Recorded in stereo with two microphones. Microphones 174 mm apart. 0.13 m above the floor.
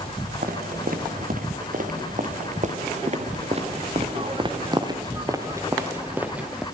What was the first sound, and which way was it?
Footsteps, 65° right (ahead or behind).